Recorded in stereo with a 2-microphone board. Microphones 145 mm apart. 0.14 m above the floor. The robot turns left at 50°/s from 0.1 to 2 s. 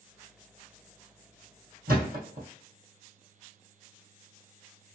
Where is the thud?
70° right (ahead or behind), 2 m; by 2.5 s 65° right (ahead or behind), 2 m.